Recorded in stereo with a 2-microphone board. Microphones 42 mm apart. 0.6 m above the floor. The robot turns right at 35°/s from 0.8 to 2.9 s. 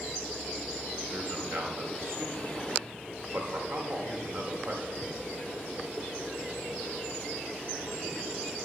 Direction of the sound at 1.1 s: 35° right (ahead or behind).